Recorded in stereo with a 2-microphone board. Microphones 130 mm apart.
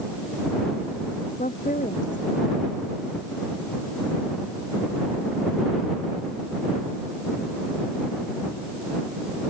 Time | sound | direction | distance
1.4 | a woman speaking | 80° left | ?